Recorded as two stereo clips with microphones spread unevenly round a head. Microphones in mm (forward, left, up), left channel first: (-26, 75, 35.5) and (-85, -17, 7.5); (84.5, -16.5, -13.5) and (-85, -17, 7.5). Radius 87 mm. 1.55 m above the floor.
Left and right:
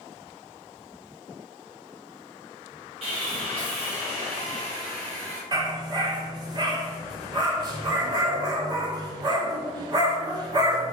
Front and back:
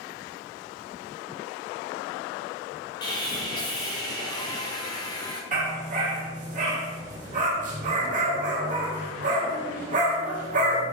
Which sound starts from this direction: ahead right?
Sawing, at 3.0 s.